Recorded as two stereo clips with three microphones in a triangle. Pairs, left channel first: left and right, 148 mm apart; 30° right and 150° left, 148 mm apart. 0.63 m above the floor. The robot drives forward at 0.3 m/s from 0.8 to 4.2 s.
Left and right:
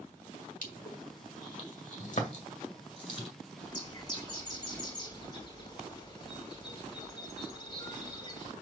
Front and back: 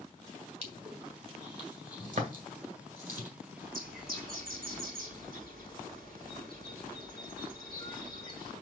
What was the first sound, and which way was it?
Crushing, 110° left.